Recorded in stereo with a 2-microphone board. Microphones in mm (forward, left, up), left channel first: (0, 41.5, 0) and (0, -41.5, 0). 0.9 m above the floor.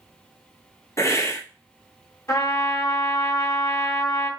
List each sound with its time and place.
1.0 s a hiss: 40° left (ahead or behind), 1.0 m
2.3 s a trumpet: 35° left (ahead or behind), 1.4 m